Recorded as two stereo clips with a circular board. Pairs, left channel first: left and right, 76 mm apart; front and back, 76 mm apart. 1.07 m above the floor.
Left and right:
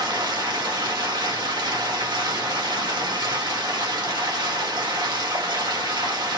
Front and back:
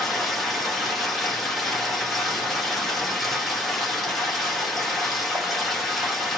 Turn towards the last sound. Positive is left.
turn(degrees=-90)